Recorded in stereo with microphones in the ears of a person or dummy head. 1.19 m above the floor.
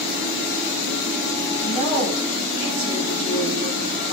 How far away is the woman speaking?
About 5.5 m.